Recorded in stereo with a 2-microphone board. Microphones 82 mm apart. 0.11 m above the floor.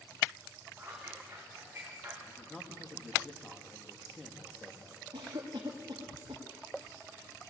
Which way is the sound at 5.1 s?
70° right (ahead or behind).